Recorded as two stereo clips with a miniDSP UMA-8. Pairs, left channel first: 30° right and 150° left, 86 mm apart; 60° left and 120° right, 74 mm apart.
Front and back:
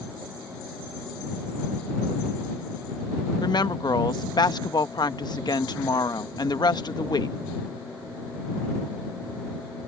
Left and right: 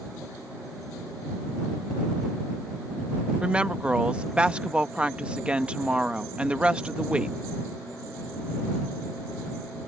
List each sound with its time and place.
3.4 s a woman speaking: 50° right